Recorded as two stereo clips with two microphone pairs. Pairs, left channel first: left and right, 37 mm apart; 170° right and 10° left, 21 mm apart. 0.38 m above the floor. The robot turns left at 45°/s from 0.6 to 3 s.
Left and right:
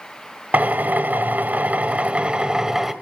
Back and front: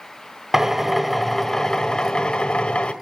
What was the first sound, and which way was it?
A drill, 65° right.